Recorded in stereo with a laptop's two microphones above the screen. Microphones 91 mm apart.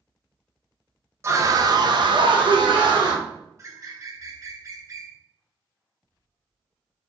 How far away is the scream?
About 0.7 m.